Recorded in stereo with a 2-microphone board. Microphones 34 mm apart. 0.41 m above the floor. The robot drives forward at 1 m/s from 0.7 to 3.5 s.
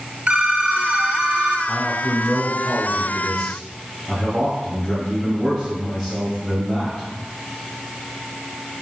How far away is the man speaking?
About 1.2 m.